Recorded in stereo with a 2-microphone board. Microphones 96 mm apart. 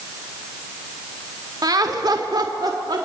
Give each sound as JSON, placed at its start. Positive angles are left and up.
{"t": 1.6, "sound": "laughter", "side_deg": -40, "distance_m": 1.4}